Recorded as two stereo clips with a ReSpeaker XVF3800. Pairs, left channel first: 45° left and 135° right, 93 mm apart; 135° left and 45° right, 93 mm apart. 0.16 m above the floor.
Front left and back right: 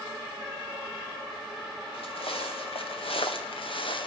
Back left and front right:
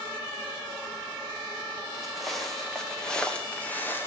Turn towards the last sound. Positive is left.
turn(degrees=70)